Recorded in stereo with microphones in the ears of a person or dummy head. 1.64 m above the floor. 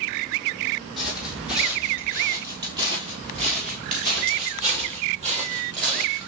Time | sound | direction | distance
1.0 | footsteps | centre (ahead or behind) | 2.5 m